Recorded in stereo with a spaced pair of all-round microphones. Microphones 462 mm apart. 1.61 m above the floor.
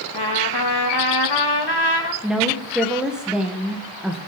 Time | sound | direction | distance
0.1 | a trumpet | 55° left (ahead or behind) | 1.6 m
2.2 | a woman speaking | centre (ahead or behind) | 1.6 m